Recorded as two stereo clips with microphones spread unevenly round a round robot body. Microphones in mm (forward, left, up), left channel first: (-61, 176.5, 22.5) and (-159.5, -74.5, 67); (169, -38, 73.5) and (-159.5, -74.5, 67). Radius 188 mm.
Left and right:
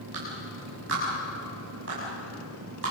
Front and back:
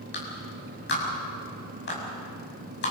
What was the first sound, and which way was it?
A clap, 50° right.